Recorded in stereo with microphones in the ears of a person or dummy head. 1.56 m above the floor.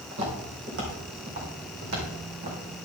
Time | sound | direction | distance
0.1 | footsteps | 60° right (ahead or behind) | 3 m